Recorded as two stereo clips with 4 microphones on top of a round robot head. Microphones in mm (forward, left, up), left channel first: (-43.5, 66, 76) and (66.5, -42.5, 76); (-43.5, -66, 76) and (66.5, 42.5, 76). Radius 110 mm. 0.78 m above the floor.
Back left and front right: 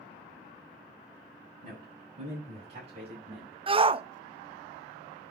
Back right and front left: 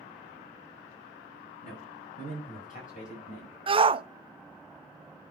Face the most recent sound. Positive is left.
turn(degrees=0)